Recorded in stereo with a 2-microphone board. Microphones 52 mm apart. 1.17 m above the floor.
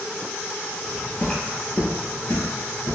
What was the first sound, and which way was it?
Footsteps, 10° left (ahead or behind).